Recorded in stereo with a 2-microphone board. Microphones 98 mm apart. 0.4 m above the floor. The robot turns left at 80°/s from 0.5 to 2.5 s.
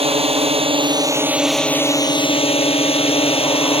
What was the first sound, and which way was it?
A drone, 75° right (ahead or behind).